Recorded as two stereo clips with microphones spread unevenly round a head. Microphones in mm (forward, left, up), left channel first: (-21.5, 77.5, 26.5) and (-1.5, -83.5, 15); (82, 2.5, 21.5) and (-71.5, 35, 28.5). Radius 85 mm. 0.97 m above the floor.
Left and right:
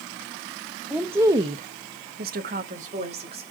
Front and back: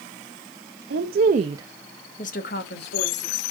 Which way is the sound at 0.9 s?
165° right.